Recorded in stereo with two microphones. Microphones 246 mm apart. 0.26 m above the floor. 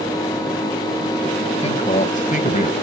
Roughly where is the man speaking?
Left.